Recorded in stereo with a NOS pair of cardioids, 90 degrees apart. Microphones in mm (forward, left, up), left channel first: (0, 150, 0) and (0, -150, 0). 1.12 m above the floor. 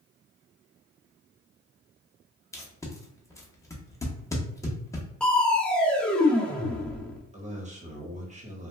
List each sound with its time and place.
2.5 s tape being pulled: 10° left, 0.8 m
5.2 s crushing: 5° left, 0.5 m
7.3 s a man speaking: 25° right, 1.1 m